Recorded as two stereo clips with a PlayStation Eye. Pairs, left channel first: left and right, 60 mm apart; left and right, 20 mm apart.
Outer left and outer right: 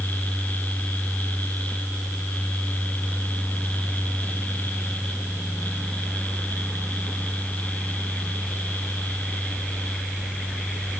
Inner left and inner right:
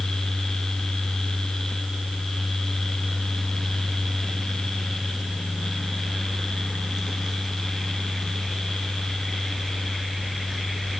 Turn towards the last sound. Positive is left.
No sound to turn to.